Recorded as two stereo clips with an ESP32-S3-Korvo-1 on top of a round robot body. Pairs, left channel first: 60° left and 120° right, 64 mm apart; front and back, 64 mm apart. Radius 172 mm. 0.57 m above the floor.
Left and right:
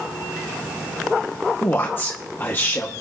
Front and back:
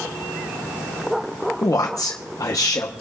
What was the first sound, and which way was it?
A man speaking, 5° left.